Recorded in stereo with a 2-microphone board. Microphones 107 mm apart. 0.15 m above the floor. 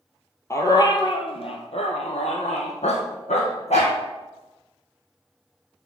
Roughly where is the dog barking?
Left.